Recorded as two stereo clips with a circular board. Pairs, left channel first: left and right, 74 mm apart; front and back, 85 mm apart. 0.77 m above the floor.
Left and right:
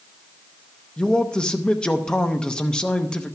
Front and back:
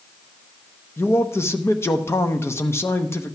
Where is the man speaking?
20° left, 0.8 m.